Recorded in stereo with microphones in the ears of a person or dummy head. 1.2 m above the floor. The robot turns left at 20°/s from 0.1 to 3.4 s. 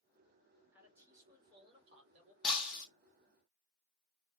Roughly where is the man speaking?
Ahead.